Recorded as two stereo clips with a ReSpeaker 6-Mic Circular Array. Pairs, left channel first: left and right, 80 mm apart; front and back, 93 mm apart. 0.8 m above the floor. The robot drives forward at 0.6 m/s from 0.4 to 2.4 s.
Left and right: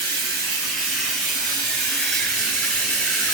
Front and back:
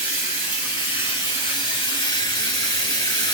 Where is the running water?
5° left, 1.9 m; by 3.4 s 10° left, 0.8 m.